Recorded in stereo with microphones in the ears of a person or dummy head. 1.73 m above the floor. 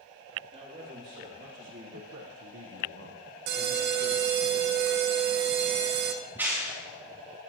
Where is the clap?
10° right (ahead or behind), 3 m.